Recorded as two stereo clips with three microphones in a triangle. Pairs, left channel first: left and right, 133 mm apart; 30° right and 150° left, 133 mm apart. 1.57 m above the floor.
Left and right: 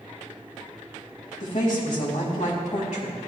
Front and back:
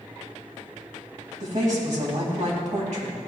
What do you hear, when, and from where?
1.4 s a woman speaking: 115° left, 3 m